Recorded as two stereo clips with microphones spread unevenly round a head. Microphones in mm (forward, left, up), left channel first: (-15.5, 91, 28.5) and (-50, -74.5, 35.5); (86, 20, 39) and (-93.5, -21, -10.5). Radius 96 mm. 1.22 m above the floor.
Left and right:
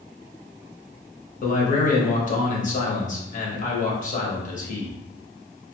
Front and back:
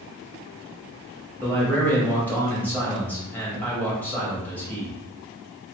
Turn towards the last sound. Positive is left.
turn(degrees=105)